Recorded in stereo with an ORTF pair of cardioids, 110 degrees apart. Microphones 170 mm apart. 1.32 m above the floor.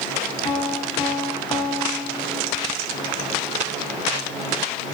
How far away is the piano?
About 3.5 m.